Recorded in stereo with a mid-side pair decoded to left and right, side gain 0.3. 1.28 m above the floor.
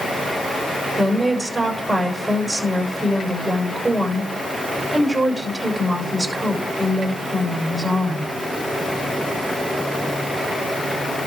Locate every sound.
1.0 s a woman speaking: 25° right, 6.5 m